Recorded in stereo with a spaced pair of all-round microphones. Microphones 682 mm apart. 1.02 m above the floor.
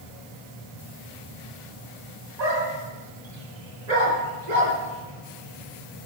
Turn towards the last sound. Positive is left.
turn(degrees=-75)  # may be behind; listen again after turning